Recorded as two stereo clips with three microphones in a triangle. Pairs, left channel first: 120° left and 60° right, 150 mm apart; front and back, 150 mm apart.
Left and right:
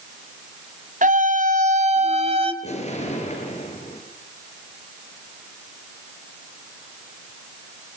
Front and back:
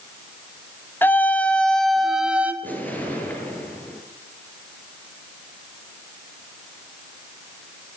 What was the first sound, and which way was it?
A scream, 75° right.